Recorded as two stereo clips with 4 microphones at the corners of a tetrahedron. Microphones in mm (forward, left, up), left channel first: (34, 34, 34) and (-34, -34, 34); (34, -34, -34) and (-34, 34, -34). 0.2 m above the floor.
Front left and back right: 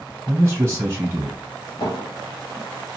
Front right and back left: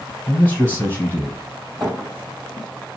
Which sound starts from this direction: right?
A man speaking, at 0.3 s.